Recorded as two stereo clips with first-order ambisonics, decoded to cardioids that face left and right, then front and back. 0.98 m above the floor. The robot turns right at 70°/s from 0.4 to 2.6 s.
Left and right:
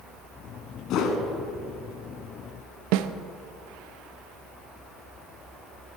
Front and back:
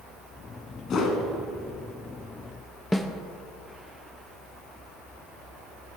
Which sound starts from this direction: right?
A snare drum, at 2.9 s.